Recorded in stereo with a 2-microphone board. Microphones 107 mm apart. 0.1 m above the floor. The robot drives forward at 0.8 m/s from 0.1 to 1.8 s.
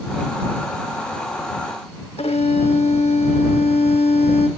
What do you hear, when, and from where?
2.2 s a violin: 80° left, 1.1 m